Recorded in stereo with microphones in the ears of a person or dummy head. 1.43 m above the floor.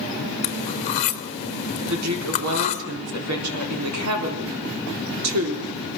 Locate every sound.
0.4 s cutlery clinking: 40° left (ahead or behind), 1.0 m
1.9 s a woman speaking: 85° right, 4 m